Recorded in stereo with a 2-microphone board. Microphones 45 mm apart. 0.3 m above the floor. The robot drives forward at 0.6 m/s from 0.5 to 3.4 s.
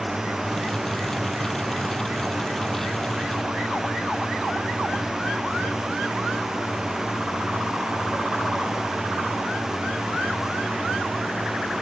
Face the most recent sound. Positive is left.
turn(degrees=-10)  # may be behind; listen again after turning